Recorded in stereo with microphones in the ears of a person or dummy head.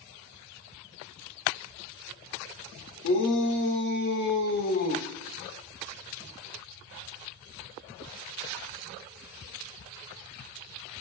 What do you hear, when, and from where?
3.0 s a shout: 70° left (ahead or behind), 4.5 m; by 5.1 s 40° left (ahead or behind), 2.5 m